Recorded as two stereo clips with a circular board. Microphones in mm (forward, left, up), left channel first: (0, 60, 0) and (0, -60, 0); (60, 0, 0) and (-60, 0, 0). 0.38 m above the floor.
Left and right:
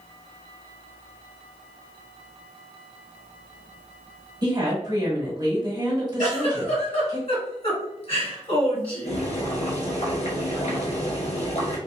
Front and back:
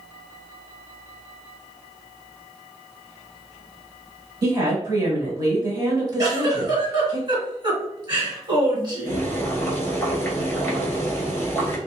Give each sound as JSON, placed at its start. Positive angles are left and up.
{"t": 4.4, "sound": "a woman speaking", "azimuth_deg": -130, "distance_m": 1.3}
{"t": 6.2, "sound": "a giggle", "azimuth_deg": 130, "distance_m": 1.8}
{"t": 9.1, "sound": "boiling", "azimuth_deg": 70, "distance_m": 0.9}